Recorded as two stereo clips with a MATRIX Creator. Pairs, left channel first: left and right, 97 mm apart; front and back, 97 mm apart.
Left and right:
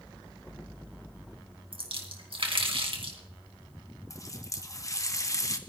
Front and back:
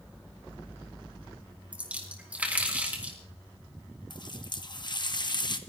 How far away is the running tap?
About 1.1 m.